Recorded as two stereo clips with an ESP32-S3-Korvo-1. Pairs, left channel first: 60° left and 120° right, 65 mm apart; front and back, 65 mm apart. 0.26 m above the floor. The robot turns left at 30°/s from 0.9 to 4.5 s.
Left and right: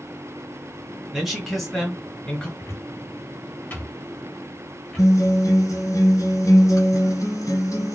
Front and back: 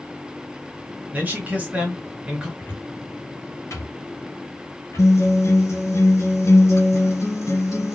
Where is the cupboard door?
45° left, 2.5 m; by 5.1 s 15° right, 2.5 m.